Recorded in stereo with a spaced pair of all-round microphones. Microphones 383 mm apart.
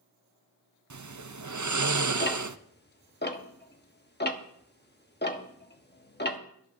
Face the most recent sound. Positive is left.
turn(degrees=25)  # may be behind; listen again after turning